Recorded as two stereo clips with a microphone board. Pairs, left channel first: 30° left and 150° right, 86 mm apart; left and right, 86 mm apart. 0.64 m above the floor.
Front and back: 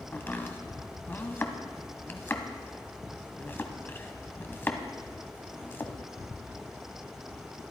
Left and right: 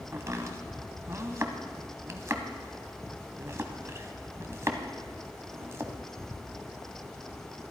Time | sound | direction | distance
0.1 | chopping | 35° right | 1.1 m